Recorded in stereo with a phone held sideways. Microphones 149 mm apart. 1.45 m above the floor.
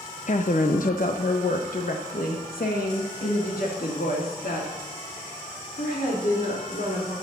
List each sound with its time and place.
0.3 s a woman speaking: 55° left (ahead or behind), 0.7 m; by 7.1 s 85° left, 4 m